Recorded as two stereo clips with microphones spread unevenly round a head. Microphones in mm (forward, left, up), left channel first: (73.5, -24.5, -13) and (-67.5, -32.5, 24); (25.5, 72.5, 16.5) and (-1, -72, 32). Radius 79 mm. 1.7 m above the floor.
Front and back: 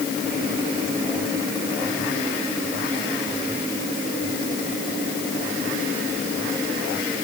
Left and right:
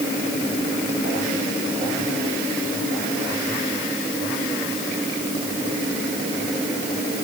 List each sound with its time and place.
Only background noise.